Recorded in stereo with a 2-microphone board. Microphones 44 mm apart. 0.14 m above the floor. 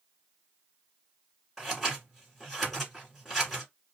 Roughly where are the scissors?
Centre.